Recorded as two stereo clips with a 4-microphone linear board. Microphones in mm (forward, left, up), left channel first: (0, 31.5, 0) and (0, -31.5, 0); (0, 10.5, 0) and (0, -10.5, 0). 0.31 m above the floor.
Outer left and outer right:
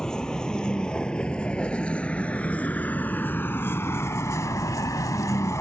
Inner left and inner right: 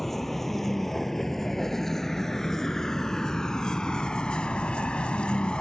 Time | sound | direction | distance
0.0 | a vehicle | 10° left (ahead or behind) | ?